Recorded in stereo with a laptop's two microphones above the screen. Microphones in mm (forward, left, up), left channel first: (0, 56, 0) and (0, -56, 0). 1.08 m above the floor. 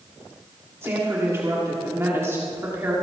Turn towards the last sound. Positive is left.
turn(degrees=-25)  # may be behind; listen again after turning